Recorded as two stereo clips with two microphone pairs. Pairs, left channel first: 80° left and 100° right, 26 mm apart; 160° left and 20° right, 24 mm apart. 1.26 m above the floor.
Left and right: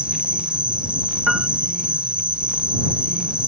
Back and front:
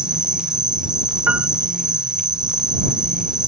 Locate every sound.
0.0 s an insect: 70° right
1.3 s a piano: 20° right